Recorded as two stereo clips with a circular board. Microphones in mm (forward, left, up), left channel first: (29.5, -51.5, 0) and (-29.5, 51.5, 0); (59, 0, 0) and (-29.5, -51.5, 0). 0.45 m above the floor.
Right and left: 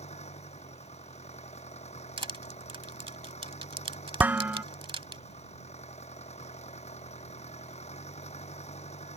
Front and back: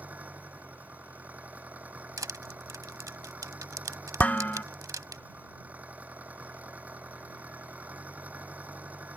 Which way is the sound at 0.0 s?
75° right.